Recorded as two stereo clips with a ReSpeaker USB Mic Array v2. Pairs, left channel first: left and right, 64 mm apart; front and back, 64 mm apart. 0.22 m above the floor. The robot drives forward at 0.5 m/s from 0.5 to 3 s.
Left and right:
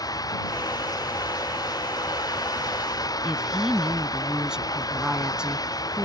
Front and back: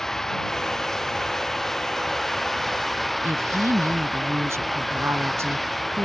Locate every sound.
0.0 s running water: 85° left
3.2 s a woman speaking: 165° right